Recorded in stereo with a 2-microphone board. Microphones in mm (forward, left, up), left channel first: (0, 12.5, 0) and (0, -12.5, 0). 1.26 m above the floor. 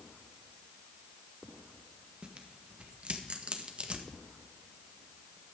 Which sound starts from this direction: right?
Tearing paper, at 2.2 s.